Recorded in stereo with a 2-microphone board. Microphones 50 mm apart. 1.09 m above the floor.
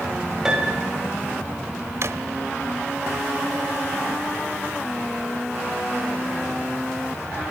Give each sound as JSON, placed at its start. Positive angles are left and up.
{"t": 0.5, "sound": "a piano", "side_deg": -10, "distance_m": 6.5}
{"t": 2.0, "sound": "a drawer", "side_deg": -60, "distance_m": 1.3}